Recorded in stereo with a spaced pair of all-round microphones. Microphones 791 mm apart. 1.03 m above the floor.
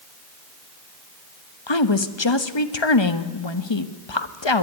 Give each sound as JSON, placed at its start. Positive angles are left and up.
{"t": 1.7, "sound": "a woman speaking", "side_deg": 35, "distance_m": 1.1}